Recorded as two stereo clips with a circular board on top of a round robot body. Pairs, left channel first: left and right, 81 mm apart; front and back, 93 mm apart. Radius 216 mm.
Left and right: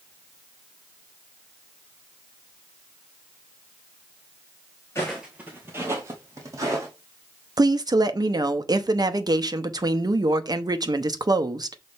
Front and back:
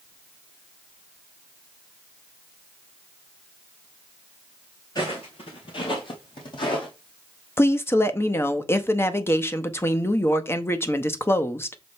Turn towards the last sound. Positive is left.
turn(degrees=-60)